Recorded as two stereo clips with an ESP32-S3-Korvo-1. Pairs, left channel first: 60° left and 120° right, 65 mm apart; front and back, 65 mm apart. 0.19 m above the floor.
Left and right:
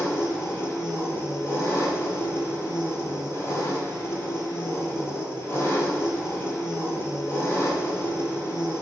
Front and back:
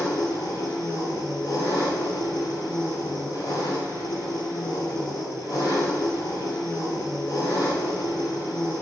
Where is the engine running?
10° left, 1.1 m.